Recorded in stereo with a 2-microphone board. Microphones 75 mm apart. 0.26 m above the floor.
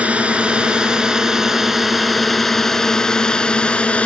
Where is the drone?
15° right (ahead or behind); by 4.1 s 15° left (ahead or behind).